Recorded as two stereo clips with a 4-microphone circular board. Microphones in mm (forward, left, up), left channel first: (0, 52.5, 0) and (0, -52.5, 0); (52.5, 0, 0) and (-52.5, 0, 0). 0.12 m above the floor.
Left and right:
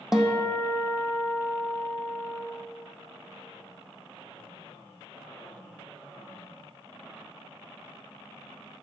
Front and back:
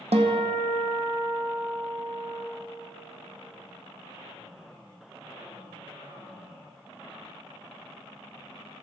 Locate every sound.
0.1 s a guitar: 175° right, 1.4 m